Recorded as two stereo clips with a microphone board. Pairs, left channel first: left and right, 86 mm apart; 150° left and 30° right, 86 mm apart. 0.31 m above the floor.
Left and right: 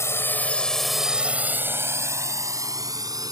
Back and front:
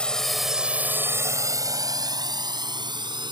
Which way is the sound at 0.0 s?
80° left.